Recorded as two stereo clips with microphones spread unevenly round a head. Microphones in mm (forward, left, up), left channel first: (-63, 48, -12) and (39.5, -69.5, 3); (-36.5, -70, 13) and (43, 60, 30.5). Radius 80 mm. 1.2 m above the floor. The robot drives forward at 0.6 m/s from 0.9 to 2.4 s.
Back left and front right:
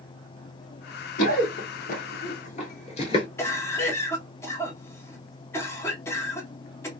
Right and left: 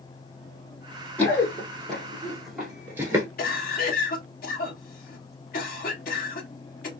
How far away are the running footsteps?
About 1.9 m.